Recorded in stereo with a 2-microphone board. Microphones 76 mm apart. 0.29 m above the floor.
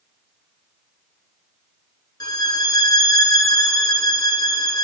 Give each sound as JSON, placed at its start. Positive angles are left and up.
{"t": 2.2, "sound": "a violin", "side_deg": 60, "distance_m": 1.2}